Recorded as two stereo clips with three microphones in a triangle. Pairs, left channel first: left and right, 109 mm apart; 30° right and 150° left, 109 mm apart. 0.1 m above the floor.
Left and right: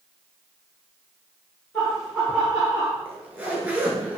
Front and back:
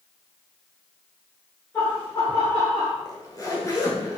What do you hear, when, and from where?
1.7 s laughter: 30° left, 1.4 m; by 3.0 s 20° right, 2.5 m
3.0 s a zipper: 25° right, 0.9 m